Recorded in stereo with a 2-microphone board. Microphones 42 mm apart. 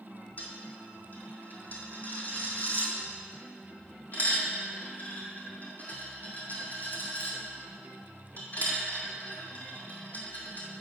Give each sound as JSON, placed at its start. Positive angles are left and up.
{"t": 0.4, "sound": "a dropped coin", "side_deg": 40, "distance_m": 2.0}